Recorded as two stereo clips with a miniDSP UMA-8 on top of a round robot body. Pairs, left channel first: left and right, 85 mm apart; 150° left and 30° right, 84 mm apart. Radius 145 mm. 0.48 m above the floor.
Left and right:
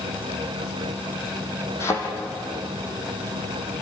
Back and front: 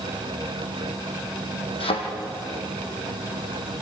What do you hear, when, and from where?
1.8 s a thud: 150° left, 3.5 m